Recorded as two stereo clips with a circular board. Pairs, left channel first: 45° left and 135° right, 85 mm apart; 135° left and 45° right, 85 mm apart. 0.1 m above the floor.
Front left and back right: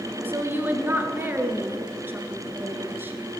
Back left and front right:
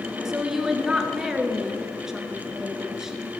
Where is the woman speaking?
120° right, 1.2 m.